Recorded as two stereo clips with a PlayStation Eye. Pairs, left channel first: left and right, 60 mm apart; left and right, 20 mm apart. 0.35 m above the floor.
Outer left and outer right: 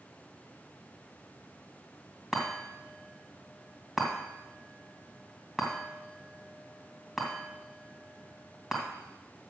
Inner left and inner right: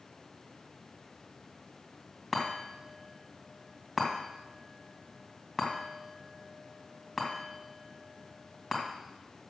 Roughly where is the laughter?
I don't hear laughter.